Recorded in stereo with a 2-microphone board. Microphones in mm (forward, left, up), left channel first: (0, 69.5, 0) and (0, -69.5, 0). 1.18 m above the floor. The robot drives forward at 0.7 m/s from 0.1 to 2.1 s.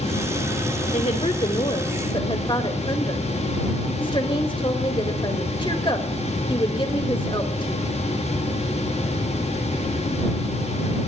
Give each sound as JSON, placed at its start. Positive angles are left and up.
{"t": 0.9, "sound": "a woman speaking", "side_deg": 50, "distance_m": 1.5}